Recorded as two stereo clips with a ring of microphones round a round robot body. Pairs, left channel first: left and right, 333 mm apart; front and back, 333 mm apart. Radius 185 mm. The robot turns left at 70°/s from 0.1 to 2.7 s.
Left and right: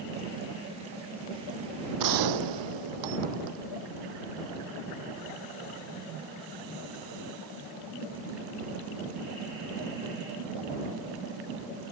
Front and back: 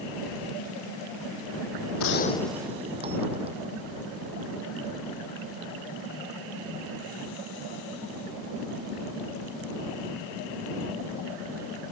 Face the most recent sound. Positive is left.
turn(degrees=-105)